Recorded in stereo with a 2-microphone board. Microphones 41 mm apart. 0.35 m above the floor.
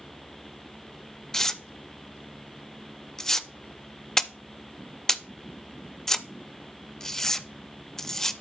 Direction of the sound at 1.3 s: 15° left (ahead or behind).